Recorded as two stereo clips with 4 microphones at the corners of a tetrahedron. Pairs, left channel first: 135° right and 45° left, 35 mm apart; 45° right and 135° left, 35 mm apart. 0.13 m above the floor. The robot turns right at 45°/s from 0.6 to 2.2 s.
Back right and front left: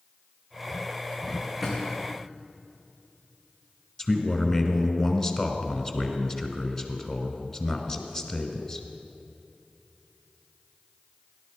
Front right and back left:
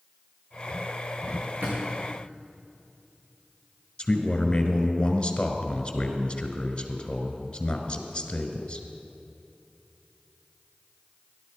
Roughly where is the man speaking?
Right.